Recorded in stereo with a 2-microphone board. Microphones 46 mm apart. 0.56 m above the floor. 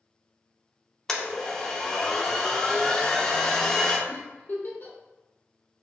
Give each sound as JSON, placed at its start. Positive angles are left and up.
{"t": 1.1, "sound": "a blender", "side_deg": 10, "distance_m": 0.6}
{"t": 4.1, "sound": "a giggle", "side_deg": 40, "distance_m": 1.1}